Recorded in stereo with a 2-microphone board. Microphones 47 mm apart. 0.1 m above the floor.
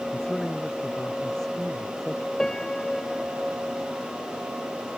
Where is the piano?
15° left (ahead or behind).